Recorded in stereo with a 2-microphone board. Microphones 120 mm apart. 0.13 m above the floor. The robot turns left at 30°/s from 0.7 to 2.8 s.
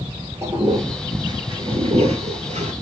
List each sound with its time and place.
0.4 s a toilet flushing: 25° right (ahead or behind), 0.8 m; by 2.7 s 65° right (ahead or behind), 0.8 m